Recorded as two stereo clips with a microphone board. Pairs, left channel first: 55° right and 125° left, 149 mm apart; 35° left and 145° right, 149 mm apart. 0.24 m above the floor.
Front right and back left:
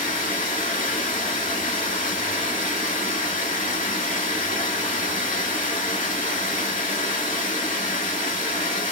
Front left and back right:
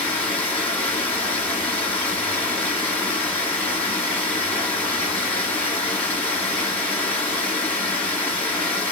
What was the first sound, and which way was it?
Running water, 45° right.